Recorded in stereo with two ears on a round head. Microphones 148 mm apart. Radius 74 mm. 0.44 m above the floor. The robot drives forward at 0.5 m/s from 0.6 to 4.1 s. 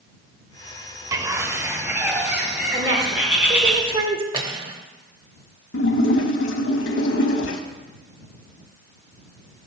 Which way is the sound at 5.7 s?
85° left.